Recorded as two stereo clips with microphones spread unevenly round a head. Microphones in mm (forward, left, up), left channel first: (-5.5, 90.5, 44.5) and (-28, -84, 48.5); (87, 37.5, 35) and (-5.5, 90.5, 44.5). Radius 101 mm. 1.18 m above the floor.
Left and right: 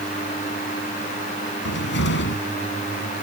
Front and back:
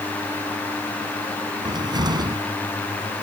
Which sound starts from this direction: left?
A cupboard door, at 1.6 s.